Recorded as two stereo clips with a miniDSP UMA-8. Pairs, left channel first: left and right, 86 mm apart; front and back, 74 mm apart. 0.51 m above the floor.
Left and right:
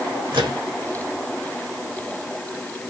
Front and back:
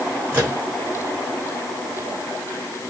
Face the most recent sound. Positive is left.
turn(degrees=-115)